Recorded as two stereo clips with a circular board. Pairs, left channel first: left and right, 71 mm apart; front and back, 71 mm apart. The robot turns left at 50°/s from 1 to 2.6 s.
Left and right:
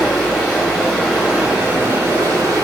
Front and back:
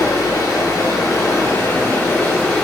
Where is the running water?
5° left, 1.3 m; by 2.6 s 75° right, 1.3 m.